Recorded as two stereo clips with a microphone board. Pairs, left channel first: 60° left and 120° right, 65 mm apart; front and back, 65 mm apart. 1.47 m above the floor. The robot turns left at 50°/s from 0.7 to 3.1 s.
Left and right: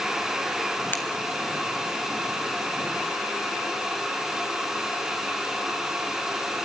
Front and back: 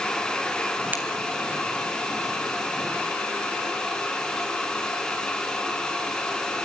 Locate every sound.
0.9 s breaking glass: 120° left, 3.5 m; by 1.0 s 115° left, 3.5 m